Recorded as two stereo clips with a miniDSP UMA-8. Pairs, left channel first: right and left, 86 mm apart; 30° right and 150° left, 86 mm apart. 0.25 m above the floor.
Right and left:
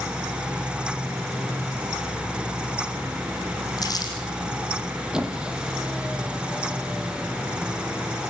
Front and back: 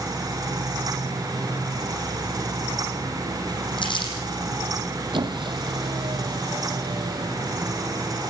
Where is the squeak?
170° left, 2.5 m.